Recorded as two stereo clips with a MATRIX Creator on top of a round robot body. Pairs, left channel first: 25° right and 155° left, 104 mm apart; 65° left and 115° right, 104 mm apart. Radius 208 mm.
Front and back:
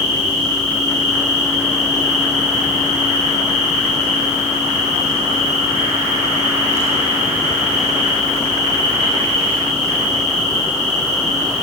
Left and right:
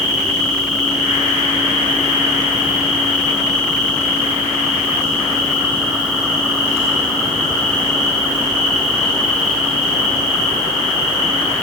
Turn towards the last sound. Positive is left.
turn(degrees=150)